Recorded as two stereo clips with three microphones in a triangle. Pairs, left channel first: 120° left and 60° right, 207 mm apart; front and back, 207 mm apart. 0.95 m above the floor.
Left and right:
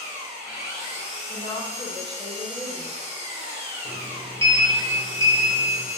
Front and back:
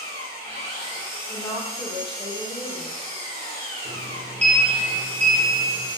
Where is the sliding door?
125° right, 0.6 m.